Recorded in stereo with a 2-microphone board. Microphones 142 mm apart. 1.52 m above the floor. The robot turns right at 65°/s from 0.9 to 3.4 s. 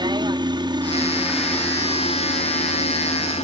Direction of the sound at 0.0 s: 35° right.